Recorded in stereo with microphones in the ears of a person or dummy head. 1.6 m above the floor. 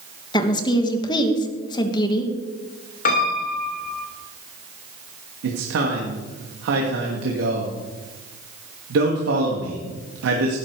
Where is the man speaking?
75° right (ahead or behind), 2.5 m.